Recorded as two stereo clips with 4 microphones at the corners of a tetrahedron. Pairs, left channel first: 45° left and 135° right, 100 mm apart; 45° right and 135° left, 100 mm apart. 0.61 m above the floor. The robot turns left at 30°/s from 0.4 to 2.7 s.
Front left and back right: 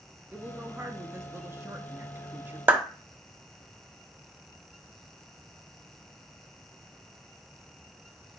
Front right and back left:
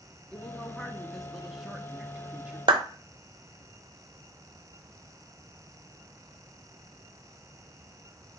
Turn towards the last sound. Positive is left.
turn(degrees=155)